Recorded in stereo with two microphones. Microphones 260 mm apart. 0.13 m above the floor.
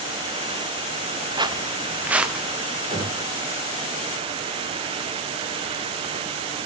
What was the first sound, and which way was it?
Footsteps, 15° right (ahead or behind).